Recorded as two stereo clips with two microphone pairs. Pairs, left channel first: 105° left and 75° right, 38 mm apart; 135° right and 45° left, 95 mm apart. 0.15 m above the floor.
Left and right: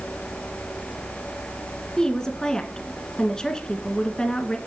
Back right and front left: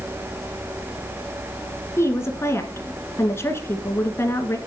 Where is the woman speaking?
175° left, 1.5 m.